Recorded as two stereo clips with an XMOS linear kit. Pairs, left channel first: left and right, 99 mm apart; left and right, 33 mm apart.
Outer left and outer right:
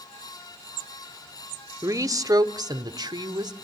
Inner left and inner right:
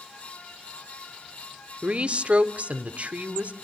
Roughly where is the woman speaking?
Right.